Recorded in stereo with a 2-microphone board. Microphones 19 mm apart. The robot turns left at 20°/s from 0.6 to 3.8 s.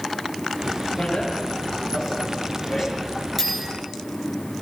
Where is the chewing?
I don't hear chewing.